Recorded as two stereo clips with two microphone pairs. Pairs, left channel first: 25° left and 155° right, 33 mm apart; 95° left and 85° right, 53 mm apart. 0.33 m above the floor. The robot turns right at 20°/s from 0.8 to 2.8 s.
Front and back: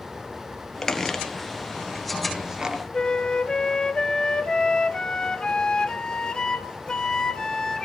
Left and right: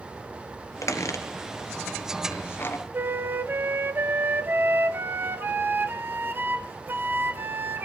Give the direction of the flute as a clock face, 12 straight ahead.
1 o'clock.